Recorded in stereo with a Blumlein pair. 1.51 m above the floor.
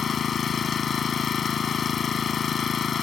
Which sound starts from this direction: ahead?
An engine running, at 0.0 s.